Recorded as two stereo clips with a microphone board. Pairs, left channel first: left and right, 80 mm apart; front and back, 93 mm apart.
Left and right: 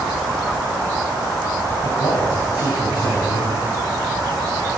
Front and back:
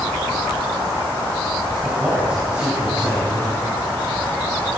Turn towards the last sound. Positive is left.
turn(degrees=115)